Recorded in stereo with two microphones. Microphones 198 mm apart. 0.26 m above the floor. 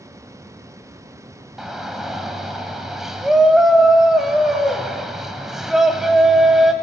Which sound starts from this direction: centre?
A shout, at 1.6 s.